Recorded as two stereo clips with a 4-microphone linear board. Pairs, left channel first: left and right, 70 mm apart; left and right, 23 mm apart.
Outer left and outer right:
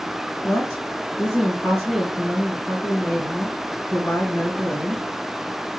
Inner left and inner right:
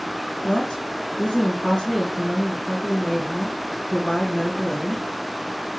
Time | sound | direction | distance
0.4 | a woman speaking | 35° left (ahead or behind) | 2 m